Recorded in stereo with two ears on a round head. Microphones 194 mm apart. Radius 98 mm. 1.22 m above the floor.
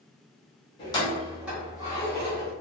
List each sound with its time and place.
0.8 s keys jangling: 25° left (ahead or behind), 1.2 m; by 2.5 s 35° right (ahead or behind), 1.6 m